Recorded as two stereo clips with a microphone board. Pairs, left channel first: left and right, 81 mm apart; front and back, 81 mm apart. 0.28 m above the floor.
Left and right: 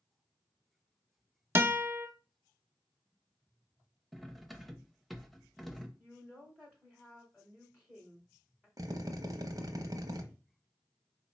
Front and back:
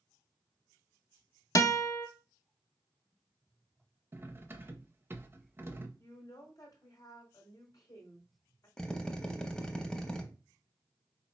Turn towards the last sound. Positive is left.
turn(degrees=-75)